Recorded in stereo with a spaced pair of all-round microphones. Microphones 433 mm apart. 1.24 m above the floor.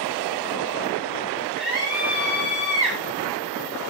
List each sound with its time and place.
1.6 s a scream: 45° right (ahead or behind), 7 m